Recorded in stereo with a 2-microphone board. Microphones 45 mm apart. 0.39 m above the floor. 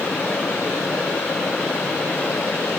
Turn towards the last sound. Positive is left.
No sound to turn to.